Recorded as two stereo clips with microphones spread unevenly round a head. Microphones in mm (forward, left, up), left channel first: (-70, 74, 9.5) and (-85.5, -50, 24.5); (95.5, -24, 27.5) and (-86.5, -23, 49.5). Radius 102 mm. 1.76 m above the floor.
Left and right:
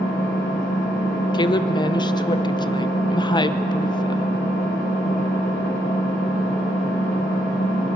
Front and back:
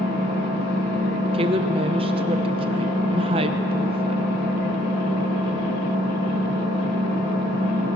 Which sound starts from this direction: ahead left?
An engine running, at 0.0 s.